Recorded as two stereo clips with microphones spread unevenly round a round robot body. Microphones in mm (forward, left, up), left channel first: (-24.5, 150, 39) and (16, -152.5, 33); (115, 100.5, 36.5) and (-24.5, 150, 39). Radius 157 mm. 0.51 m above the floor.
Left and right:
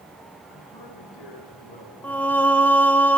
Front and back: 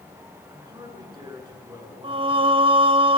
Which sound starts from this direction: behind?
Singing, at 2.0 s.